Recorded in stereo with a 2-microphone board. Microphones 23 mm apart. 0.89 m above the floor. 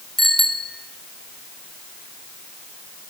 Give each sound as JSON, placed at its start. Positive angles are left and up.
{"t": 0.2, "sound": "a bicycle bell", "side_deg": 10, "distance_m": 3.0}